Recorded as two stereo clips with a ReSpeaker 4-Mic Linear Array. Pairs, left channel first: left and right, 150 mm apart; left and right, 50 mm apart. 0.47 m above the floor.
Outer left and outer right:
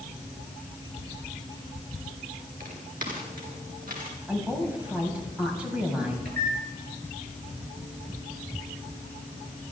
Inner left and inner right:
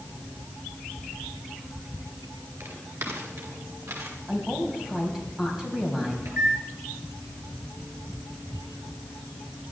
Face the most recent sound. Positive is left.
turn(degrees=-85)